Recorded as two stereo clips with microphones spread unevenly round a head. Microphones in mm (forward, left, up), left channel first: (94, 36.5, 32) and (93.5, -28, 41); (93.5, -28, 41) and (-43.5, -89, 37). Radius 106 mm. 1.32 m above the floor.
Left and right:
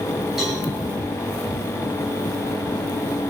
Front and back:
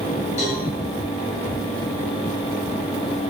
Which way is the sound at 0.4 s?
10° right.